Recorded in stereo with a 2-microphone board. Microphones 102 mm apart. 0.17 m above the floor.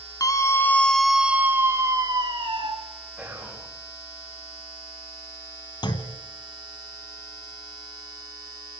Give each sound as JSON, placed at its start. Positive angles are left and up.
{"t": 0.2, "sound": "a scream", "side_deg": 35, "distance_m": 2.0}
{"t": 3.2, "sound": "whispering", "side_deg": -10, "distance_m": 7.0}
{"t": 5.8, "sound": "a clunk", "side_deg": 45, "distance_m": 1.3}